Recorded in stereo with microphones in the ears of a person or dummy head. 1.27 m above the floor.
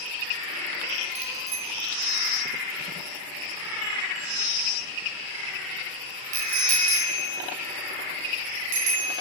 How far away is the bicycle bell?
About 5.5 m.